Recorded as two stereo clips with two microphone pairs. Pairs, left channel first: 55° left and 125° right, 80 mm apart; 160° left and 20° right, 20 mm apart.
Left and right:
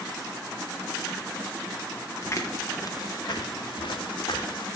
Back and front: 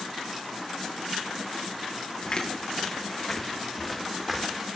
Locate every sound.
2.2 s footsteps: 115° left, 3 m; by 4.7 s 55° left, 3 m